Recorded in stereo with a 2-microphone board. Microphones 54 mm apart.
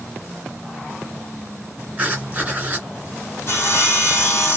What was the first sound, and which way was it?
Writing, 20° right (ahead or behind).